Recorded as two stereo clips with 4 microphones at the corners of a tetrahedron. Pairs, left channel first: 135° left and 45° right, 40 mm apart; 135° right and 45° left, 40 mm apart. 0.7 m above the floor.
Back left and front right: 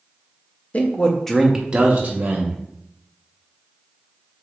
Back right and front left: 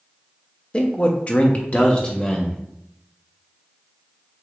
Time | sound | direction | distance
0.7 | a man speaking | 165° left | 0.7 m